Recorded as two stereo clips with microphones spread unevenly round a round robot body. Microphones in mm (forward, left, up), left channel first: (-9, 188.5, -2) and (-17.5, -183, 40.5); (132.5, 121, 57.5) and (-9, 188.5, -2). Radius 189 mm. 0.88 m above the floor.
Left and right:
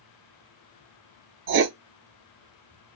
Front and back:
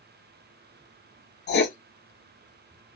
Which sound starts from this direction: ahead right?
Writing, at 1.5 s.